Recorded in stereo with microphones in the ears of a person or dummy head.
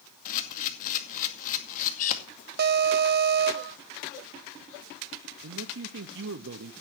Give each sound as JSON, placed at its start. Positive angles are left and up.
{"t": 0.2, "sound": "a camera shutter", "side_deg": 45, "distance_m": 2.0}
{"t": 2.6, "sound": "an alarm", "side_deg": -55, "distance_m": 0.7}
{"t": 5.4, "sound": "a man speaking", "side_deg": -60, "distance_m": 0.9}